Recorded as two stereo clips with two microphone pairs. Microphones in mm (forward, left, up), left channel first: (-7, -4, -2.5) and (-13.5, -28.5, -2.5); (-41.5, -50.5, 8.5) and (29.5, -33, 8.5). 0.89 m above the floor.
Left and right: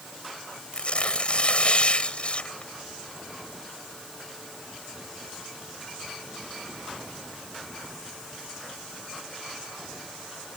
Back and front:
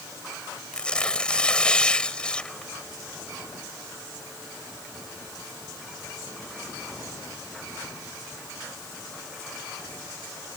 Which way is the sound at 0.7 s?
115° left.